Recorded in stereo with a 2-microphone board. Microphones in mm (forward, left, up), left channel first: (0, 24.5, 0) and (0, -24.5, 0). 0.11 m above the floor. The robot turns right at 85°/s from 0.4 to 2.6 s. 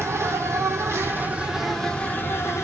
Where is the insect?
110° right, 0.7 m; by 2.6 s 80° left, 0.7 m.